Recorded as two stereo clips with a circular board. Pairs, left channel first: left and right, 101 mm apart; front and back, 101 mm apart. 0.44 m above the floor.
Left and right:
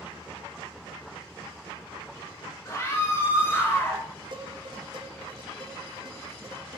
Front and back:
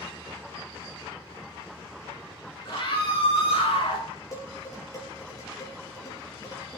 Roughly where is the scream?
Ahead left.